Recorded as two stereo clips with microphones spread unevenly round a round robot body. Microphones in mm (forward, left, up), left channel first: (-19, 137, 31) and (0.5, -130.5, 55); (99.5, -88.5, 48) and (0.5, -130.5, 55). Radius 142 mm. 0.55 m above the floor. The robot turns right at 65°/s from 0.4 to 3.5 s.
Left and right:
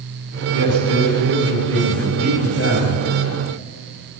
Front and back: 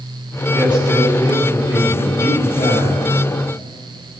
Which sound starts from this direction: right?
A man speaking, at 0.5 s.